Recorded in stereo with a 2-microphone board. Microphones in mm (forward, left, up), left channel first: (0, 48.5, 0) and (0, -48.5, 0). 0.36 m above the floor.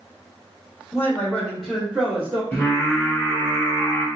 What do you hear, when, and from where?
0.9 s a man speaking: 25° left (ahead or behind), 0.9 m; by 2.4 s 15° right (ahead or behind), 1.0 m
2.5 s singing: 25° left (ahead or behind), 1.3 m